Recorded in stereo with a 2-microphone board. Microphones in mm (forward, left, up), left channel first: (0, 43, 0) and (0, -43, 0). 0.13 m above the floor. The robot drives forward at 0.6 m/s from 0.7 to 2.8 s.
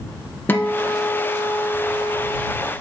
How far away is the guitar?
About 1.0 m.